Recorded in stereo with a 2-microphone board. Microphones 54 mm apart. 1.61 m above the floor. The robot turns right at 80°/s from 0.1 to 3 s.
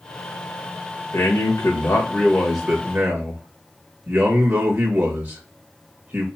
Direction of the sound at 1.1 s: 70° left.